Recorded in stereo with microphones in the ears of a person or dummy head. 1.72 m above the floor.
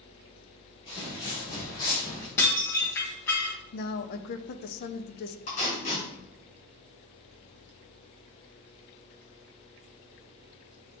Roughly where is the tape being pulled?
Left.